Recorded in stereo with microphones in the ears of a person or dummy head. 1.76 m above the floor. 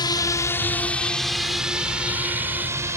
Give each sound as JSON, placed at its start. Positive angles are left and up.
{"t": 0.0, "sound": "a drone", "side_deg": 20}